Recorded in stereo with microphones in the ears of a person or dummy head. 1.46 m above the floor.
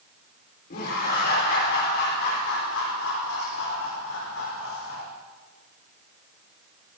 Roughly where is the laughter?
Left.